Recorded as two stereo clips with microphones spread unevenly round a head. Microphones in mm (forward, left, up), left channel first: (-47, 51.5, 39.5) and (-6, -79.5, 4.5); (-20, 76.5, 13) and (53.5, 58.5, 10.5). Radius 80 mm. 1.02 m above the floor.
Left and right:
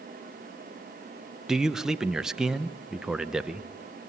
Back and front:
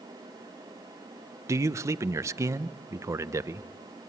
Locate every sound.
1.5 s a man speaking: 5° right, 0.8 m